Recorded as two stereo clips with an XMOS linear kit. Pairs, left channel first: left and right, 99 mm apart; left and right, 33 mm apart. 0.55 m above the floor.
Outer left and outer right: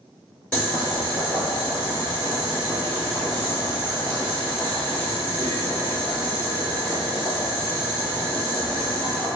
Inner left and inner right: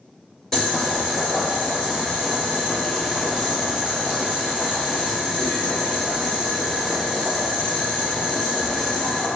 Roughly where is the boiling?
Centre.